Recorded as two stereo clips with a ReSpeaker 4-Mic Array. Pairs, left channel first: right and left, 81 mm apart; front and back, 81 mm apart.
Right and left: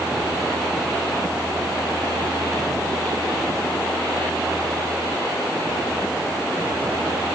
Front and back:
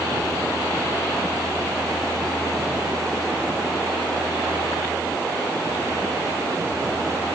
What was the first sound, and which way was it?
Only background noise.